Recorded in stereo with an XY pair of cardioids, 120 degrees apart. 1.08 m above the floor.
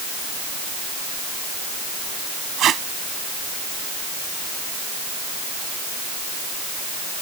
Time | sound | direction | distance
2.6 | tape being pulled | 55° right | ?